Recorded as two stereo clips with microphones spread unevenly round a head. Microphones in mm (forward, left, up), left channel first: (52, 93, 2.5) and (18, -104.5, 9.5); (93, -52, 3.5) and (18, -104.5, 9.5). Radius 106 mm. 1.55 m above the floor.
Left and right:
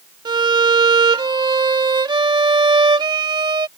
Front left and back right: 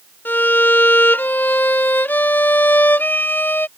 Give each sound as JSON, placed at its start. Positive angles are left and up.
{"t": 0.2, "sound": "a violin", "azimuth_deg": -35}